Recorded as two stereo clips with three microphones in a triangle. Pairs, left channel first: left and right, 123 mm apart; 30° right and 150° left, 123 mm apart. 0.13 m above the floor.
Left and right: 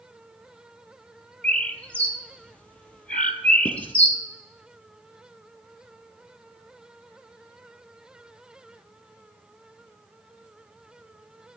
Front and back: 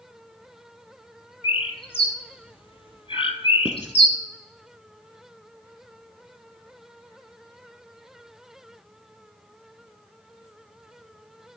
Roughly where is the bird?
Ahead.